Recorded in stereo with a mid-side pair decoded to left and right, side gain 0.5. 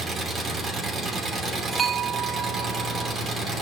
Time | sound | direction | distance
0.0 | an engine running | 45° right | 3 m
1.7 | a bell | 40° right | 0.7 m